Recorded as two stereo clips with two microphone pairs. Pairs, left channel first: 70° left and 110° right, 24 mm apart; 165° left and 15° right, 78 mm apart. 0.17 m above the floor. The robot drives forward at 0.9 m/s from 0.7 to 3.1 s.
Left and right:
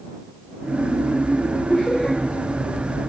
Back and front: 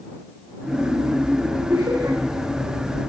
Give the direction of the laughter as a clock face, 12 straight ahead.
11 o'clock.